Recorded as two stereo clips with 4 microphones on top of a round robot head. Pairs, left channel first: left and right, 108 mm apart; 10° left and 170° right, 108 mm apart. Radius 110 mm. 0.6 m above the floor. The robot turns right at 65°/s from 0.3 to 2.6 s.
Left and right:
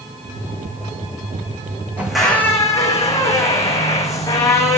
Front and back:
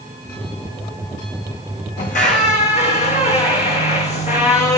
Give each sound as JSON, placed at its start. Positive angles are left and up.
{"t": 2.0, "sound": "a squeak", "azimuth_deg": -15, "distance_m": 2.0}